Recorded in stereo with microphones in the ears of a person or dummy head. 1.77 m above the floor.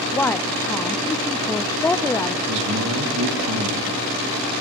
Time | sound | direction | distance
0.1 | a woman speaking | 10° left (ahead or behind) | 0.5 m
2.5 | a man speaking | 70° right (ahead or behind) | 3 m